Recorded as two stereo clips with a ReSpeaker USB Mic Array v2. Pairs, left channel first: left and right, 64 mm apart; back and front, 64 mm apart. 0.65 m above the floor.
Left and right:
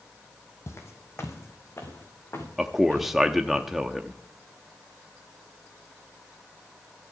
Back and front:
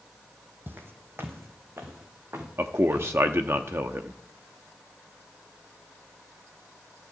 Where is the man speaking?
5° right, 0.8 m.